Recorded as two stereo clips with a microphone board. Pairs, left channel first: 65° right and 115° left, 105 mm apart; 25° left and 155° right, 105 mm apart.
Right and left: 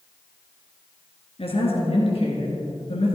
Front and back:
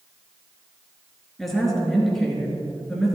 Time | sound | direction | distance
1.4 | a woman speaking | 65° right | 2.5 m